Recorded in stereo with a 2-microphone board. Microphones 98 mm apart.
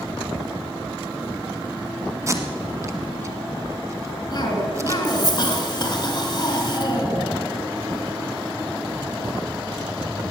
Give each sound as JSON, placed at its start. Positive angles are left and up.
{"t": 2.3, "sound": "tape being pulled", "side_deg": -30, "distance_m": 1.3}
{"t": 4.3, "sound": "a cough", "side_deg": 45, "distance_m": 2.5}